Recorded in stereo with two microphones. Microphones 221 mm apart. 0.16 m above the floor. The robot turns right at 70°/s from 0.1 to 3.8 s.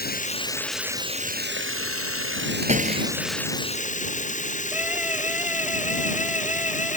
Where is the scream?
5° right (ahead or behind).